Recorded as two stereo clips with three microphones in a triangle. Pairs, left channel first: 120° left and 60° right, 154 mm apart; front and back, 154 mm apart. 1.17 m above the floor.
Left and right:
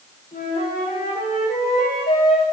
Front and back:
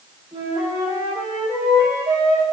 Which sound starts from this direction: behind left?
A flute, at 0.3 s.